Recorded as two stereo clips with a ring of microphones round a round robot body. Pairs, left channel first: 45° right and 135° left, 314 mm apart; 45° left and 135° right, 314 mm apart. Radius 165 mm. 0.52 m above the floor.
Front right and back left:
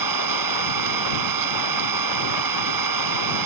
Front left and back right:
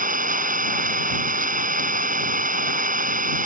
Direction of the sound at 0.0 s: 160° left.